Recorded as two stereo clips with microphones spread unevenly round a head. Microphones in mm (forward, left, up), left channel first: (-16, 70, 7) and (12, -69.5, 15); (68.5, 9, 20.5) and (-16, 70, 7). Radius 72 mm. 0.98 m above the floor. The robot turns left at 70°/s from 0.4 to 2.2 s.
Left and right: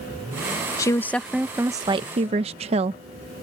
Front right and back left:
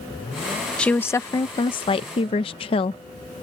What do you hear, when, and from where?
0.8 s a woman speaking: 50° left; by 3.0 s 50° right